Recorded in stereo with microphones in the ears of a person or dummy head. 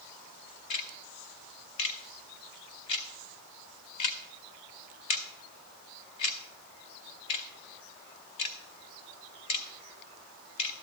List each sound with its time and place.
0.7 s ticking: 35° left (ahead or behind), 0.7 m